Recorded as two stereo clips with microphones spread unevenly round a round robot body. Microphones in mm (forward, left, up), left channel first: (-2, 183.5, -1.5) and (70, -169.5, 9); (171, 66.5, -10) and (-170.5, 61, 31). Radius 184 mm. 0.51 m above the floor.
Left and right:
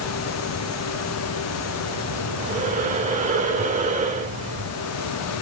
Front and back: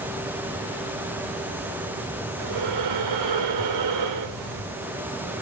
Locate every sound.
2.4 s breathing: 145° right, 1.9 m